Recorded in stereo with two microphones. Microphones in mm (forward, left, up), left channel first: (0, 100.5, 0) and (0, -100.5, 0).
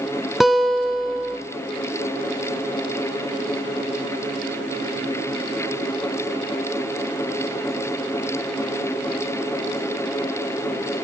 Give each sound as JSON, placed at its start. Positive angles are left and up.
{"t": 0.4, "sound": "a guitar", "side_deg": 0, "distance_m": 1.4}